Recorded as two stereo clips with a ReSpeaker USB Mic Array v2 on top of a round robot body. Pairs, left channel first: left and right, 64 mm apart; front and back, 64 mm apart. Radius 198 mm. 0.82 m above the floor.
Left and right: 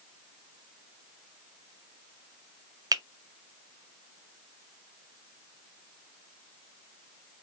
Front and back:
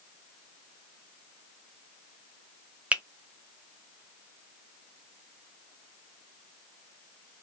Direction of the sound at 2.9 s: 110° right.